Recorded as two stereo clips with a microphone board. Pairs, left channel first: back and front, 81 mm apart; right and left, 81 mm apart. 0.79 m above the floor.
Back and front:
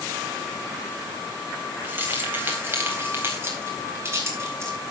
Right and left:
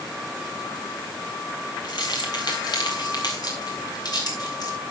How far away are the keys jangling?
About 3.5 m.